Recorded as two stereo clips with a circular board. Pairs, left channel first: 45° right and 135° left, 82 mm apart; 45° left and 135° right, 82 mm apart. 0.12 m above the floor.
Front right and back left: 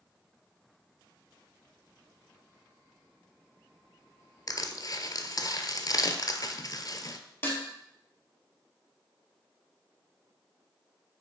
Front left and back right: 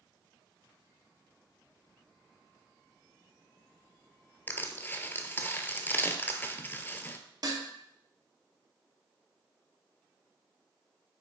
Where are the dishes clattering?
105° right, 1.6 m.